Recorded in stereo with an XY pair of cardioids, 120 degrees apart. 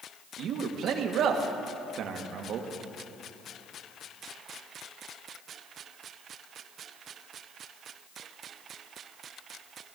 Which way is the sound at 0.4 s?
65° right.